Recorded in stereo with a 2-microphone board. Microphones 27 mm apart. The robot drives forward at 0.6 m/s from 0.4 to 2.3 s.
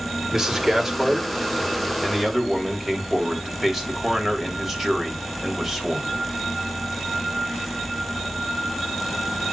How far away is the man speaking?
About 2 m.